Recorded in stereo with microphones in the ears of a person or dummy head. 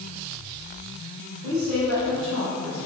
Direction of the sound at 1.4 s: 80° right.